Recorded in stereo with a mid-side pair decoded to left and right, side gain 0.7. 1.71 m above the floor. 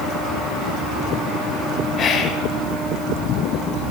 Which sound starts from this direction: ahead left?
Whispering, at 2.0 s.